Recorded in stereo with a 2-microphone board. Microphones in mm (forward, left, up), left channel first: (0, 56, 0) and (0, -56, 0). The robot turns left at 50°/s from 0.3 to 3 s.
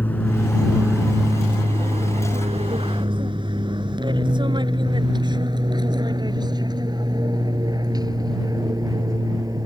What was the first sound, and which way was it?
An aircraft, 15° left (ahead or behind).